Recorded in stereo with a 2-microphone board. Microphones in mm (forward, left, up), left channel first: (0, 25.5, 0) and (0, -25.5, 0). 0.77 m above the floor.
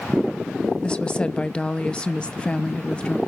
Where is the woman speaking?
20° left (ahead or behind), 0.7 m.